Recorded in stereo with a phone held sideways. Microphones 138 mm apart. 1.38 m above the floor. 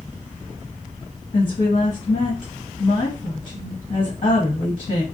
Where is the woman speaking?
80° left, 1.4 m.